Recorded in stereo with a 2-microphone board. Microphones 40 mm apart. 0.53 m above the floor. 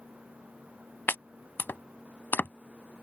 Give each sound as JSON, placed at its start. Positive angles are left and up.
{"t": 1.1, "sound": "chopping", "side_deg": 65}